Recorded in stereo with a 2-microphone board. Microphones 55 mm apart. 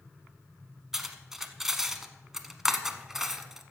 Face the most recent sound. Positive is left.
turn(degrees=-10)  # may be behind; listen again after turning